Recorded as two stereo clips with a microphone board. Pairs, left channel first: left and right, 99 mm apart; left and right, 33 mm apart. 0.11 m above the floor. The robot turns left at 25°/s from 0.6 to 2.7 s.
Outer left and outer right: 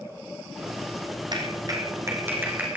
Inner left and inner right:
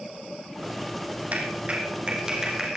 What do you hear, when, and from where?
1.3 s a clap: 50° right (ahead or behind), 3.5 m; by 2.8 s 15° right (ahead or behind), 3.5 m